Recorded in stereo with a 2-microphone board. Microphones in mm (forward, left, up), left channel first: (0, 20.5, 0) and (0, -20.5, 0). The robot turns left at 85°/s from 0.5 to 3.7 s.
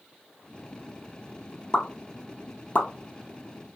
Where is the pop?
20° left (ahead or behind), 0.8 m; by 2.9 s 30° left (ahead or behind), 0.8 m.